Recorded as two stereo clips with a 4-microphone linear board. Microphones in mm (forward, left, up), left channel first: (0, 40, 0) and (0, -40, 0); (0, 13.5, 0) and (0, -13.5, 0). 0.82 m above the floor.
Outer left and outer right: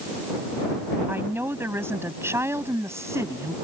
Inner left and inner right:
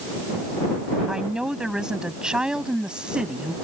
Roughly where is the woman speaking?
Right.